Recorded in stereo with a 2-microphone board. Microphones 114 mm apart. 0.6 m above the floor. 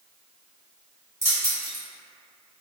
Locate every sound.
1.2 s keys jangling: 30° right (ahead or behind), 1.6 m